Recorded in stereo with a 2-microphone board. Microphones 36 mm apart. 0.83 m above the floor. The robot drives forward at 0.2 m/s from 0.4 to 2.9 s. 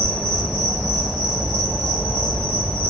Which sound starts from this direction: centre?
An insect, at 0.0 s.